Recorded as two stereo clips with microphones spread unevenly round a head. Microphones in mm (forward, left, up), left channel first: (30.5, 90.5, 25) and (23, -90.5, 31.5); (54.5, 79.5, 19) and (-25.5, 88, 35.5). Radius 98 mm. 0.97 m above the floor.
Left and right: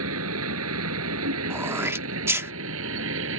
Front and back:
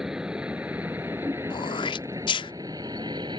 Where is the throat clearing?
15° right.